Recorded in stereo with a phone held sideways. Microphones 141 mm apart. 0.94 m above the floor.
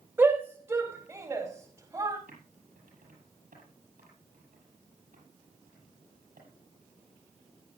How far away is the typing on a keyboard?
About 7 m.